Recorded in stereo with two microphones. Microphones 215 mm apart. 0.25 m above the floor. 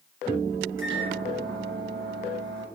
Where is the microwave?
65° right (ahead or behind), 2.5 m.